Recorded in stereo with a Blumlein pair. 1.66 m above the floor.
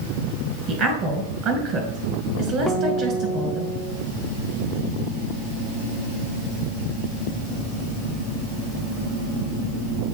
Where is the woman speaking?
30° right, 2 m.